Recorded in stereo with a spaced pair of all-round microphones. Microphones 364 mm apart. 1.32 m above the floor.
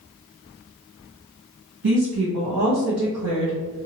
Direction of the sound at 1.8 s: 80° right.